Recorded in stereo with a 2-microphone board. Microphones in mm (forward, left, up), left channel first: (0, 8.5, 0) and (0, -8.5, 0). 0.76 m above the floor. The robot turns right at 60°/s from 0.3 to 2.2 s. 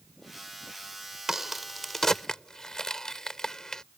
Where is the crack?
20° right (ahead or behind); by 3.8 s 30° left (ahead or behind).